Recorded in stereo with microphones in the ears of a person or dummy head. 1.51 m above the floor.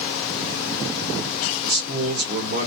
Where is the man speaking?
55° right (ahead or behind), 1.4 m.